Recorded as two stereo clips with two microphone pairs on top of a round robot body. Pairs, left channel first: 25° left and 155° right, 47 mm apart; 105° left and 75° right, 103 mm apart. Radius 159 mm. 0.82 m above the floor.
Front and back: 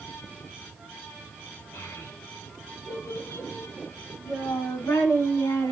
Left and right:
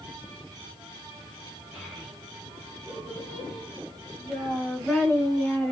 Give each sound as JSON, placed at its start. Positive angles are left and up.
{"t": 1.7, "sound": "a child speaking", "azimuth_deg": 10, "distance_m": 4.0}